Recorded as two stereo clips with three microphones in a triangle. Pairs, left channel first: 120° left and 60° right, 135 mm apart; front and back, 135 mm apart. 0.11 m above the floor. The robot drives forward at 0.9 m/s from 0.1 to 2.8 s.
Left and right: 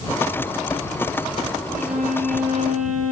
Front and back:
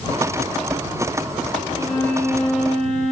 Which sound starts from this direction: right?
A violin, at 1.7 s.